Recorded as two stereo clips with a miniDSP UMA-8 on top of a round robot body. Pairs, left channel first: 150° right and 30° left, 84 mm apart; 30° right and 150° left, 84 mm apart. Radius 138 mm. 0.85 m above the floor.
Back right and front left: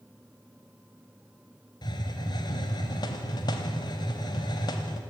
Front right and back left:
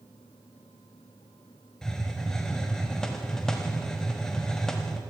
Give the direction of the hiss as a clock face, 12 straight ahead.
4 o'clock.